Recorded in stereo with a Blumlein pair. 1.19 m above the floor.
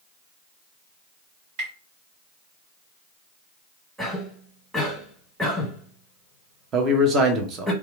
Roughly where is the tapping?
Ahead right.